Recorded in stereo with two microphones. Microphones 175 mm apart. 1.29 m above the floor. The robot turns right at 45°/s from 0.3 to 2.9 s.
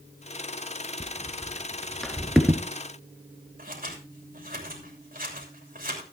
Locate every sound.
1.0 s footsteps: 15° right (ahead or behind), 1.3 m; by 2.6 s 10° right (ahead or behind), 1.4 m
3.6 s scissors: 55° right (ahead or behind), 3 m